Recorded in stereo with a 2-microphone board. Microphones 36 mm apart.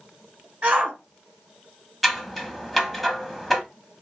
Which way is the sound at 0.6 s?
40° right (ahead or behind).